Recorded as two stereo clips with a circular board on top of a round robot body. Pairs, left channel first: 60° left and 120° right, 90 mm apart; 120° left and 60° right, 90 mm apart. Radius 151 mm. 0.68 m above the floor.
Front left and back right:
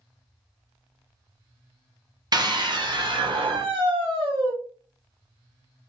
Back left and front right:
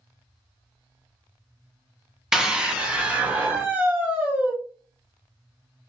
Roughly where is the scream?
Behind right.